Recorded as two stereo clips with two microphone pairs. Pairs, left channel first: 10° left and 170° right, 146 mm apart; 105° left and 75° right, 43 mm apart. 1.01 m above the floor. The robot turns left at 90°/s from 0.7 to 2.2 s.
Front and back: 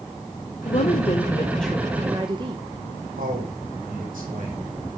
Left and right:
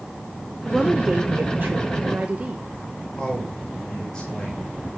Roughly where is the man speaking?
Behind.